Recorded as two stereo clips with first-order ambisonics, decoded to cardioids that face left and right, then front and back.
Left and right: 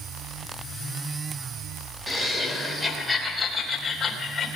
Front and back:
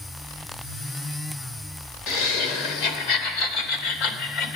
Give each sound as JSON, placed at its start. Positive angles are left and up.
{"t": 2.1, "sound": "laughter", "azimuth_deg": -10, "distance_m": 3.5}